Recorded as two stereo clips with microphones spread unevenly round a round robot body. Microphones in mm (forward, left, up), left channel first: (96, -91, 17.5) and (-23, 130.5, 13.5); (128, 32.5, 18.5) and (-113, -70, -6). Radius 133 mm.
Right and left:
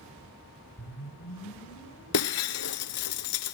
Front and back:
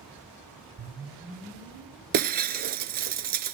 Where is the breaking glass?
100° right, 0.7 m.